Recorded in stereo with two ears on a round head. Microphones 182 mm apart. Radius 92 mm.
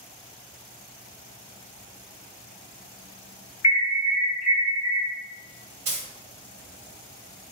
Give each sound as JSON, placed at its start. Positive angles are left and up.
{"t": 3.6, "sound": "an alarm", "side_deg": 30, "distance_m": 1.1}
{"t": 5.8, "sound": "a dropped coin", "side_deg": -30, "distance_m": 1.2}